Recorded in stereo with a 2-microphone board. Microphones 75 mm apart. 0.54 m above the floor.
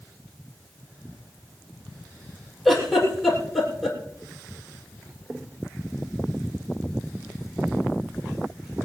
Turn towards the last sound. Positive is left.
turn(degrees=0)  # may be behind; listen again after turning